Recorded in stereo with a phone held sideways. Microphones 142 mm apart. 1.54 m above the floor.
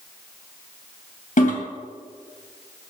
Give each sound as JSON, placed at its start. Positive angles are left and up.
{"t": 1.4, "sound": "a toilet flushing", "side_deg": 70, "distance_m": 2.5}